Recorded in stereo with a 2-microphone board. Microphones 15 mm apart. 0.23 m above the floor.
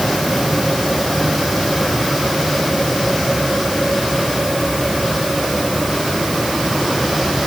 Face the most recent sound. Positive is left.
No sound to turn to.